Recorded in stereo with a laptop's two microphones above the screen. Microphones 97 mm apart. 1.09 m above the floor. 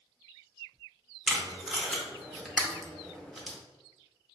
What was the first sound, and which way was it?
Tape being pulled, centre (ahead or behind).